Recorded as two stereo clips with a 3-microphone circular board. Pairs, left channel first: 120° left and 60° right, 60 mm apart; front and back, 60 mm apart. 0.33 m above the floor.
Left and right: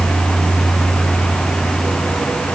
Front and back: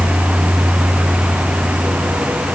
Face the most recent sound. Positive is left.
No sound to turn to.